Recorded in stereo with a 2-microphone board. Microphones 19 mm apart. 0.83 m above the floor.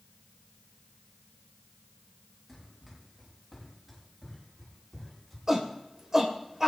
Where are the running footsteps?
10° right (ahead or behind), 9 m; by 5.4 s 5° right (ahead or behind), 10.5 m.